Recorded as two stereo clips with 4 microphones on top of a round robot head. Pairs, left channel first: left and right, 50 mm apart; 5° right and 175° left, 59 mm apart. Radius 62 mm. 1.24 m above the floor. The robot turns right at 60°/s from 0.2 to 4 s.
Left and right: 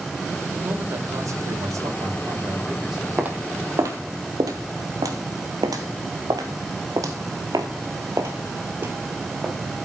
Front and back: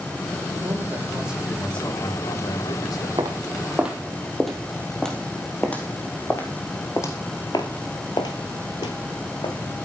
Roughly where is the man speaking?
Behind right.